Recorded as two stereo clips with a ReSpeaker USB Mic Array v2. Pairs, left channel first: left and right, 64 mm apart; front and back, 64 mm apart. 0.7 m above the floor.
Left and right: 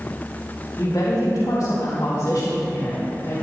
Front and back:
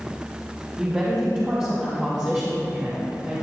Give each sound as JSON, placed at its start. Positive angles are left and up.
{"t": 0.8, "sound": "a woman speaking", "azimuth_deg": 120, "distance_m": 3.5}